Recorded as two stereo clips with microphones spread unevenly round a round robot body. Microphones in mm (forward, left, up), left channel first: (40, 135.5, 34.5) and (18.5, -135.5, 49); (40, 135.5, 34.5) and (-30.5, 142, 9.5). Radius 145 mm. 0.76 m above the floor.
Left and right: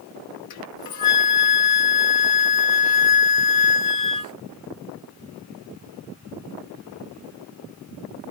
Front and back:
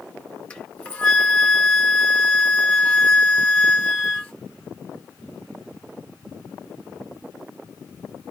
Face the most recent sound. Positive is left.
turn(degrees=70)